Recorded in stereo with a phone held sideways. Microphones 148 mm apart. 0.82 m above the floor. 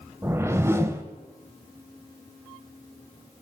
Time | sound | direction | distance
0.2 | a whoosh | 20° right (ahead or behind) | 0.7 m